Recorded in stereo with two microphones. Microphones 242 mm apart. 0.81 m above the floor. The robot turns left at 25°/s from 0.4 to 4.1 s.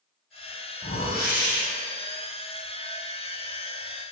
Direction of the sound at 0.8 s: 35° left (ahead or behind).